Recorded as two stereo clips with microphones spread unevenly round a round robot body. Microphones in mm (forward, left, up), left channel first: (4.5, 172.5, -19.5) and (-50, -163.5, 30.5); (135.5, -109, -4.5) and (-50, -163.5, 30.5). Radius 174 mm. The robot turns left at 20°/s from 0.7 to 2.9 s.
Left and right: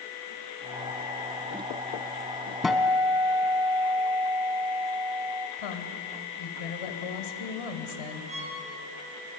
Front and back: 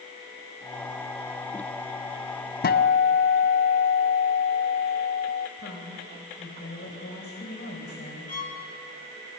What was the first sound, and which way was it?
A guitar, 15° right.